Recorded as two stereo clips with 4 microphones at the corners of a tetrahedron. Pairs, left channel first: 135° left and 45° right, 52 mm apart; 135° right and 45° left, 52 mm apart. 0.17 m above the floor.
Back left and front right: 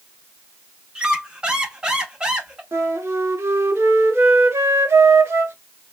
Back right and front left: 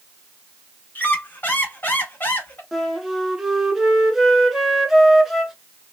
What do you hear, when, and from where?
0.9 s a squeak: 105° right, 0.8 m
2.7 s a flute: 40° right, 0.8 m